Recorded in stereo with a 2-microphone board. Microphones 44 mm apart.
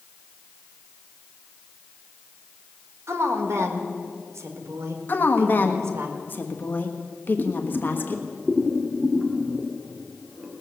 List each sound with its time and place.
3.1 s a woman speaking: 75° right (ahead or behind), 1.8 m
5.1 s a woman speaking: 45° left (ahead or behind), 1.3 m
7.4 s boiling: 10° right (ahead or behind), 1.9 m